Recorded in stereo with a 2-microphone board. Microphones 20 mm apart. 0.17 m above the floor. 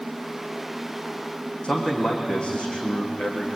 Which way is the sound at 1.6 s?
60° left (ahead or behind).